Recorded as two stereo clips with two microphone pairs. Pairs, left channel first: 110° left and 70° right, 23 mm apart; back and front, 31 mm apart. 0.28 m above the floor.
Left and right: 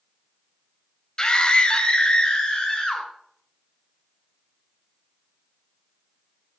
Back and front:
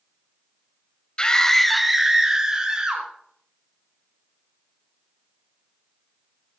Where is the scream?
145° left, 1.3 m; by 3.1 s 55° left, 2.5 m.